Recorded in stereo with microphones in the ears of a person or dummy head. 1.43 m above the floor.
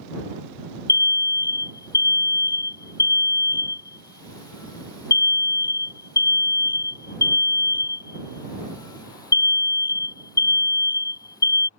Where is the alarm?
20° left (ahead or behind).